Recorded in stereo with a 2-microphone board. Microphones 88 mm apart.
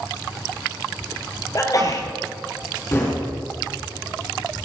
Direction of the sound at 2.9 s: 35° left (ahead or behind).